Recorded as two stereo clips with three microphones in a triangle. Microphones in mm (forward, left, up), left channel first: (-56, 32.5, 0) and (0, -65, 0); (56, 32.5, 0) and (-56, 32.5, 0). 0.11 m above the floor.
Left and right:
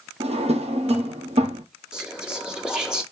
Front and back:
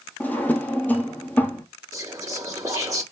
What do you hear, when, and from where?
0.2 s a drawer: 70° right, 0.9 m
1.9 s whispering: 140° right, 1.5 m